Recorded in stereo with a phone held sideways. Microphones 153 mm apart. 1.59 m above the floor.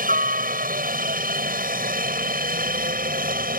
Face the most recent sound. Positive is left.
turn(degrees=-80)